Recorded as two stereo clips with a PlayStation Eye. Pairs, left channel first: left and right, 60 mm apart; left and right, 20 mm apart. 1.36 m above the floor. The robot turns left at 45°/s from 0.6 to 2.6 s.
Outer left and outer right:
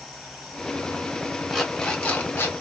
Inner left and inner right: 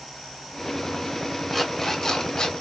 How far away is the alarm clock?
About 1.2 m.